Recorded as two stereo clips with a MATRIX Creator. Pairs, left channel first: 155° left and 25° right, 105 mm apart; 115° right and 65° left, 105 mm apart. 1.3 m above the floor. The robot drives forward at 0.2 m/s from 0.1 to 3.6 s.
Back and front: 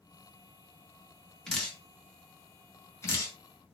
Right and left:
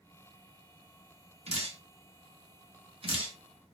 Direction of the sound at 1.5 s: 75° left.